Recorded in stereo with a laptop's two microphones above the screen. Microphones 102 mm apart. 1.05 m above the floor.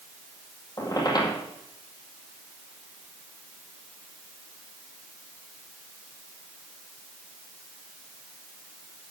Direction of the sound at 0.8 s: 40° left (ahead or behind).